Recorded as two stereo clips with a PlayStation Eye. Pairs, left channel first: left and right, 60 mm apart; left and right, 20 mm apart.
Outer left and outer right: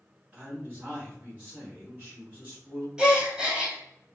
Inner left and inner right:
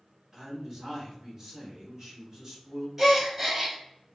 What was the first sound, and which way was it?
A man speaking, 20° right (ahead or behind).